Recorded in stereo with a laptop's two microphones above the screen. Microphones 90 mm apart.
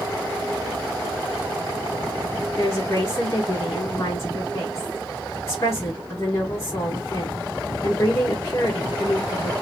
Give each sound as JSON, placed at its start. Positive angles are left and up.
{"t": 2.6, "sound": "a woman speaking", "side_deg": 35, "distance_m": 1.2}